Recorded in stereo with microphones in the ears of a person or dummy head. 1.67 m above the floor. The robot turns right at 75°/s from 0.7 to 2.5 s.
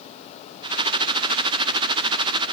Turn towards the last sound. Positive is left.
No sound to turn to.